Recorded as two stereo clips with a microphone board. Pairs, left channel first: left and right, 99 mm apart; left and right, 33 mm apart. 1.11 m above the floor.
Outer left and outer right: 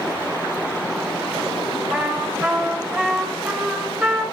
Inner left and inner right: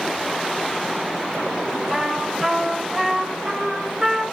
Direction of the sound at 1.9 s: 15° right (ahead or behind).